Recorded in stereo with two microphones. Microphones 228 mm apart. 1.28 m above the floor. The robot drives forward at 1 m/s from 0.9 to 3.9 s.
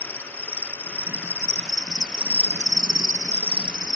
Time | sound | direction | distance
0.0 | an insect | 10° right (ahead or behind) | ?